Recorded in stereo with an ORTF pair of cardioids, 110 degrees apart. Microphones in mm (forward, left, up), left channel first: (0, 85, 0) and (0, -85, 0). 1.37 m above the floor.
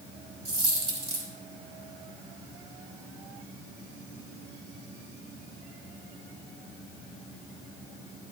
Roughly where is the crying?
I don't hear crying.